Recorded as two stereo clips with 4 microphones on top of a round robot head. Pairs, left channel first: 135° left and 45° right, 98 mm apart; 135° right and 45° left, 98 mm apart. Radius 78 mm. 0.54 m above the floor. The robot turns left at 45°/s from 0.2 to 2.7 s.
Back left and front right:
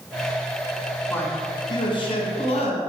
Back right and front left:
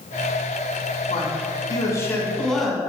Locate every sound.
1.1 s a man speaking: 155° right, 1.7 m; by 2.8 s 135° left, 1.7 m